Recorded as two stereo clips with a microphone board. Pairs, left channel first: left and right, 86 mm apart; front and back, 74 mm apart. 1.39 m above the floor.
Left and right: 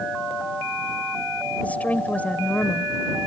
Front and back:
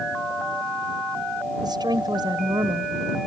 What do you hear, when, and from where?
1.6 s a woman speaking: 165° left